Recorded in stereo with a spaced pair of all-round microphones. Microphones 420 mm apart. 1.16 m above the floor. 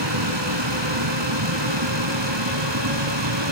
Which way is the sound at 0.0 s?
85° right.